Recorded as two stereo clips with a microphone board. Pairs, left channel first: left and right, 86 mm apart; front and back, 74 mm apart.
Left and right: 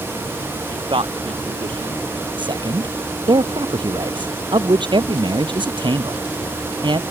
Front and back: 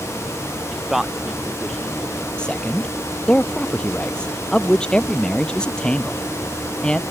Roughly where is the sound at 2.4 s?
Right.